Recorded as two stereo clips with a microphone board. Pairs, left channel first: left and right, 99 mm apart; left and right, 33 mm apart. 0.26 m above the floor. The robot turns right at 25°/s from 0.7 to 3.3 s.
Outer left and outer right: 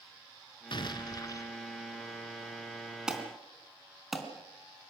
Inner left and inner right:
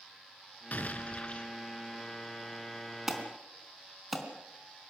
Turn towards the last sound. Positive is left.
turn(degrees=0)  # may be behind; listen again after turning